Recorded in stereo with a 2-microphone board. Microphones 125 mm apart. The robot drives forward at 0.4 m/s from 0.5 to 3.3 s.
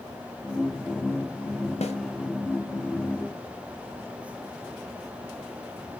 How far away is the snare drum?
About 2 m.